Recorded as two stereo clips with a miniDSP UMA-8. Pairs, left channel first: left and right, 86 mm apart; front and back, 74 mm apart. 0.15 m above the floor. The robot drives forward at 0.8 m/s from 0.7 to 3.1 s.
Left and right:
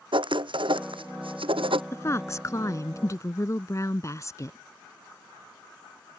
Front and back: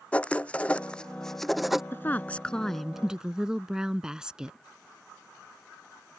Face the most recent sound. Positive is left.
turn(degrees=105)